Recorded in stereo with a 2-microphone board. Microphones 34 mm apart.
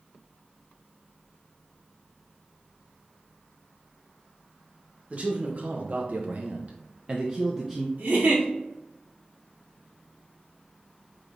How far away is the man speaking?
About 1.1 m.